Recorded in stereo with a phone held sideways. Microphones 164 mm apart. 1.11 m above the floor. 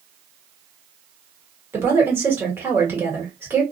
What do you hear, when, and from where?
1.7 s a woman speaking: 15° right (ahead or behind), 1.3 m